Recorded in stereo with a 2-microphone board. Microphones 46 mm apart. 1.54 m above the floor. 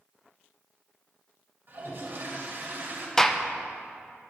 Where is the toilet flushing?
55° right (ahead or behind), 1.9 m.